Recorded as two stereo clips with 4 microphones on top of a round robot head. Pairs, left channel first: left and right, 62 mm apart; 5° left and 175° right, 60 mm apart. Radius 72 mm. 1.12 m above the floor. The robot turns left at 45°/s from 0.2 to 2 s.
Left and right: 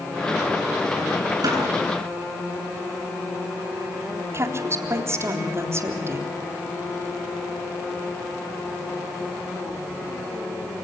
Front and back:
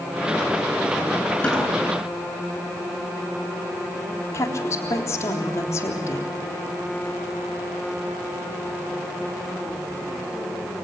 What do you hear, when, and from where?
1.4 s a snare drum: 75° right, 10 m; by 1.6 s 85° right, 10 m
4.3 s a woman speaking: 45° right, 3.5 m